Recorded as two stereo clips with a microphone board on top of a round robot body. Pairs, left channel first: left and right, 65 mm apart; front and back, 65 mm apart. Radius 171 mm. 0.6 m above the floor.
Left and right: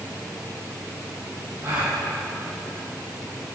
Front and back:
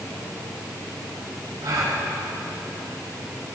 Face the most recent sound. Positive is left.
turn(degrees=-145)